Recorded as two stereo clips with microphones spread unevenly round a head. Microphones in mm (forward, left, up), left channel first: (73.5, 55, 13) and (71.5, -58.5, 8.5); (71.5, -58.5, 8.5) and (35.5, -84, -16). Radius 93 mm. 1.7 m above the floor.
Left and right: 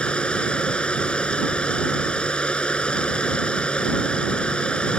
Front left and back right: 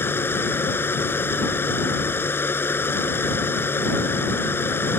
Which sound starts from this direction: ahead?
A machine running, at 0.0 s.